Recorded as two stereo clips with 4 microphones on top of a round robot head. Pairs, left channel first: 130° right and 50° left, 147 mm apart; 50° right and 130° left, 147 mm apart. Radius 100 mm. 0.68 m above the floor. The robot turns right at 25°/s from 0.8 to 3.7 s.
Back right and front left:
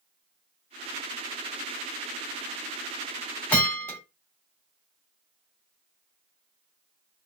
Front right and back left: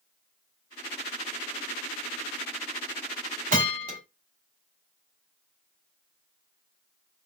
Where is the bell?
155° left, 3 m; by 4.0 s 160° left, 3 m.